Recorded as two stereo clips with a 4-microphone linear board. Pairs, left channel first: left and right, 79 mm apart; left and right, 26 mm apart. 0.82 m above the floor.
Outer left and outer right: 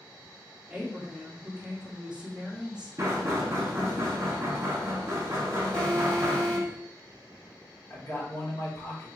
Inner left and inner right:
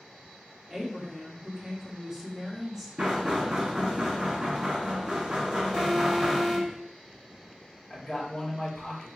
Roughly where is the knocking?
Right.